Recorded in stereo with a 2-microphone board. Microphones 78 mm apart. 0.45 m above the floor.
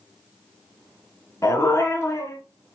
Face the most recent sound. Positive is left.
turn(degrees=35)  # may be behind; listen again after turning